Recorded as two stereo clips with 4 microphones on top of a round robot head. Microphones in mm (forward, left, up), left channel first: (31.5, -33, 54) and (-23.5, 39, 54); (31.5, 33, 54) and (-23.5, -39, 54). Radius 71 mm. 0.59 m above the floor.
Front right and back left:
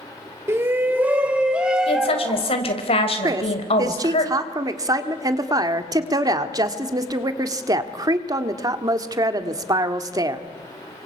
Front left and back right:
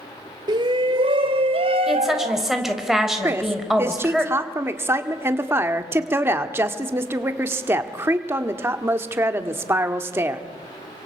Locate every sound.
0.5 s a shout: 170° right, 1.8 m; by 2.5 s 145° right, 3.5 m
1.9 s a woman speaking: 40° right, 4 m
3.2 s a woman speaking: 170° left, 1.8 m